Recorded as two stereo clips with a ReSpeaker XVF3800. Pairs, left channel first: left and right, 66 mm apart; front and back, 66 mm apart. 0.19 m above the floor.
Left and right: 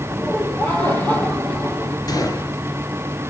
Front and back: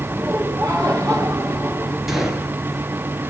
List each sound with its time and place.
0.1 s laughter: 145° left, 4.5 m
2.1 s a gunshot: 95° left, 3 m